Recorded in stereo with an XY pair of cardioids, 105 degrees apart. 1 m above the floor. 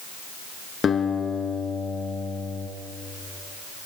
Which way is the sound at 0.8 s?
45° left.